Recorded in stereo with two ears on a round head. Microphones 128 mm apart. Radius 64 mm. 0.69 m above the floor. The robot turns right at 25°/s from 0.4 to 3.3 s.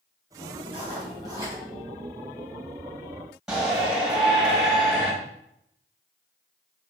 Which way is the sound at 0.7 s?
40° right (ahead or behind).